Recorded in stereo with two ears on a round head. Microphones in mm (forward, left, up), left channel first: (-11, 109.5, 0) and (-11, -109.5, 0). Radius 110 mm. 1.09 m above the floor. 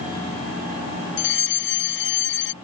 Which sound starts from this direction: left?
A fire alarm, at 1.2 s.